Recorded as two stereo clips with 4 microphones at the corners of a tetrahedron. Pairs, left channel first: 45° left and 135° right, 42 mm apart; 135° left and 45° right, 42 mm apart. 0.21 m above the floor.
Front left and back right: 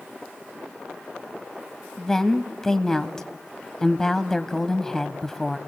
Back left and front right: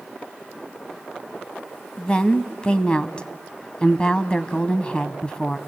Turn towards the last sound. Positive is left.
turn(degrees=105)